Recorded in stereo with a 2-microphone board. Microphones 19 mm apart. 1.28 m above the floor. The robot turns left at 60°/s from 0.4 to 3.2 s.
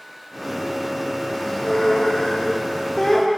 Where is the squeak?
145° left, 1.0 m; by 3.3 s 35° left, 1.0 m.